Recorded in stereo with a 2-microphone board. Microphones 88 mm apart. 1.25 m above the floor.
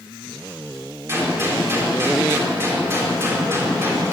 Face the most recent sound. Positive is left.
turn(degrees=-30)  # may be behind; listen again after turning